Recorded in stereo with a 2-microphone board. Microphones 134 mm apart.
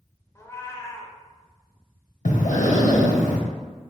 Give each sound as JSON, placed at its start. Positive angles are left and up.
{"t": 0.3, "sound": "a cat meowing", "side_deg": 20, "distance_m": 0.5}
{"t": 2.2, "sound": "breathing", "side_deg": 70, "distance_m": 0.6}